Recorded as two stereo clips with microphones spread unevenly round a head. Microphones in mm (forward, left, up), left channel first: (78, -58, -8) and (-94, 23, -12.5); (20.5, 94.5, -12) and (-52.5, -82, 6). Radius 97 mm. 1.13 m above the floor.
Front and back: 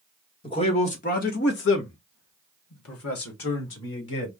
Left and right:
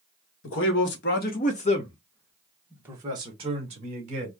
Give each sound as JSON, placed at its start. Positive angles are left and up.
{"t": 0.4, "sound": "a man speaking", "azimuth_deg": 40, "distance_m": 1.4}